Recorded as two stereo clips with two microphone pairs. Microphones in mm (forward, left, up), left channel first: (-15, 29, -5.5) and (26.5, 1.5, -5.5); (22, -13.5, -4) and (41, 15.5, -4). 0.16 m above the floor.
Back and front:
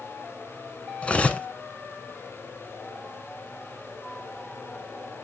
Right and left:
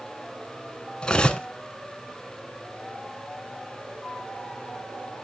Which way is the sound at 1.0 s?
170° right.